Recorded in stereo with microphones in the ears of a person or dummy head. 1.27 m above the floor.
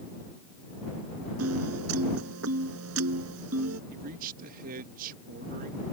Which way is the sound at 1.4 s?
85° right.